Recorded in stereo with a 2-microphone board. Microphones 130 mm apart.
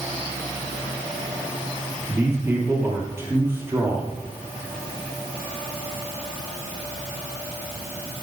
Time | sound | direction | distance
2.1 | a man speaking | 20° right (ahead or behind) | 2.5 m